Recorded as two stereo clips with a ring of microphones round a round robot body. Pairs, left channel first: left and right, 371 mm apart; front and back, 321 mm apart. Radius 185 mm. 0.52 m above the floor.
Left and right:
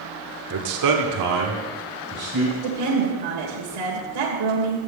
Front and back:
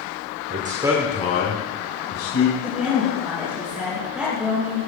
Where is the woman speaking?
95° right, 2 m.